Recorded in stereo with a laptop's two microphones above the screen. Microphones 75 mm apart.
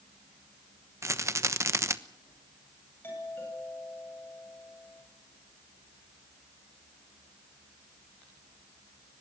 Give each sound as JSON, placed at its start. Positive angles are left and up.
{"t": 1.0, "sound": "a rattle", "side_deg": -40, "distance_m": 1.0}
{"t": 3.0, "sound": "a doorbell", "side_deg": 30, "distance_m": 10.0}